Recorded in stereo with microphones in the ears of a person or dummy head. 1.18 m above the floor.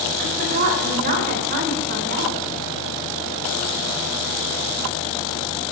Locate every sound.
0.2 s a woman speaking: 50° right (ahead or behind), 4 m; by 2.4 s 60° right (ahead or behind), 3 m